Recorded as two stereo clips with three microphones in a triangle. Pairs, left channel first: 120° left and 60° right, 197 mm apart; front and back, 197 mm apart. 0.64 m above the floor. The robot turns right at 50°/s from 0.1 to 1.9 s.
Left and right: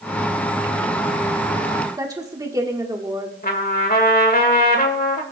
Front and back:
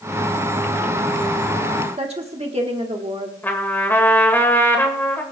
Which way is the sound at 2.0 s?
130° right.